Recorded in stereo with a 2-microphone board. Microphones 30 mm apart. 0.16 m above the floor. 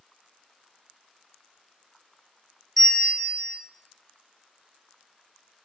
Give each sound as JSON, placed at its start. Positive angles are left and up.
{"t": 2.8, "sound": "a bell", "side_deg": 15, "distance_m": 0.9}